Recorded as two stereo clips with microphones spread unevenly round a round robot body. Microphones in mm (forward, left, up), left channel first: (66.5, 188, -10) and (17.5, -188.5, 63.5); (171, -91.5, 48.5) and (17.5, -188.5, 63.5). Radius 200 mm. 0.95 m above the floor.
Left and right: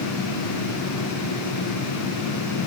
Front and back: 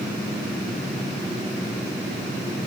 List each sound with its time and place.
Only background noise.